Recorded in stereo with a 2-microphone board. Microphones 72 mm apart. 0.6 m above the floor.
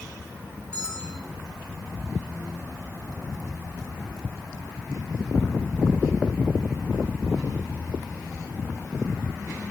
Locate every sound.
0.7 s a bell: 15° left (ahead or behind), 4.5 m